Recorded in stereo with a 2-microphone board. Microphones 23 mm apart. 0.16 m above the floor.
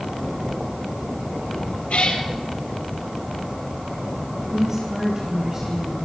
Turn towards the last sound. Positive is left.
turn(degrees=-25)  # may be behind; listen again after turning